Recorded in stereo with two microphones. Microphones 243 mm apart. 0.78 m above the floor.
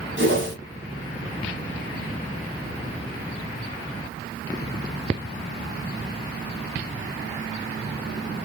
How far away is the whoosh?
About 1.5 m.